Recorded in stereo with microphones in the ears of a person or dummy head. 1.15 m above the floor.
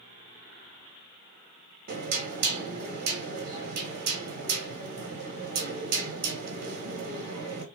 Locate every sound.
1.9 s knocking: 40° right (ahead or behind), 1.0 m